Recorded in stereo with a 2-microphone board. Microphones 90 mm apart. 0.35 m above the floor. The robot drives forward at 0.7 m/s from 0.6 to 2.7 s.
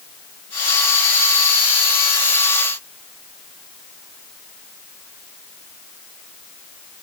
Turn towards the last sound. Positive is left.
No sound to turn to.